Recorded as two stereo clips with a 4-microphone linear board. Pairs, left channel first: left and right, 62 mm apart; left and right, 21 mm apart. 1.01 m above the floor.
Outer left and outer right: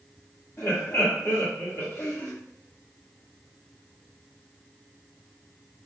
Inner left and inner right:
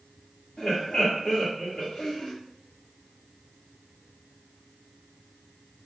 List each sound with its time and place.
0.6 s laughter: 45° left (ahead or behind), 1.7 m